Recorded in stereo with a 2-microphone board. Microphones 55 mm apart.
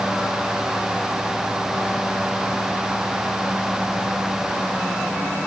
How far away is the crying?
No crying in this recording.